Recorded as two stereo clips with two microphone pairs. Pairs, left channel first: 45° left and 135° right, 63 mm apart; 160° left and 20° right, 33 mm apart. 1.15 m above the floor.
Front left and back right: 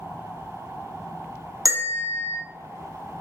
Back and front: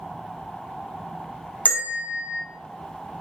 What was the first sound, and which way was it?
A bell, 160° right.